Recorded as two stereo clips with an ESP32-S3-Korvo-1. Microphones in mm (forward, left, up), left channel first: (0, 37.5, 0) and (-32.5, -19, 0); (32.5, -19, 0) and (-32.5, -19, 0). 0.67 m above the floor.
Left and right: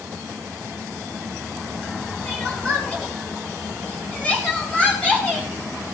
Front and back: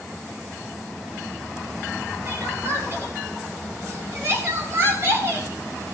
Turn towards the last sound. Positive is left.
turn(degrees=130)